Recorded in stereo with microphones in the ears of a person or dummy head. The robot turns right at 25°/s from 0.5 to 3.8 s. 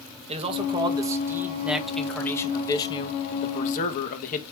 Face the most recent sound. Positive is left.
turn(degrees=40)